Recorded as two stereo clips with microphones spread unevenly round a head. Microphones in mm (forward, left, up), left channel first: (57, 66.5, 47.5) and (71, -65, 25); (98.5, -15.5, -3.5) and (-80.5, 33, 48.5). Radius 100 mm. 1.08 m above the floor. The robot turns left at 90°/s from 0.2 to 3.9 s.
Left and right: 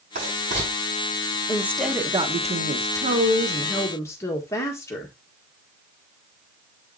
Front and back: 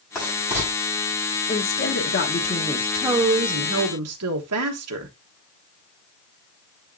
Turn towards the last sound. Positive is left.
turn(degrees=175)